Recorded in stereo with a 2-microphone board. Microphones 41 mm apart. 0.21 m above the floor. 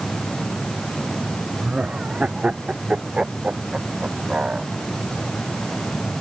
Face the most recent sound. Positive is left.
turn(degrees=-30)  # may be behind; listen again after turning